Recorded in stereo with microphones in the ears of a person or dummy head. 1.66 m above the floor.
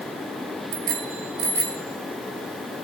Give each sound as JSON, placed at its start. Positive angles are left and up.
{"t": 0.7, "sound": "a bicycle bell", "side_deg": -60, "distance_m": 2.5}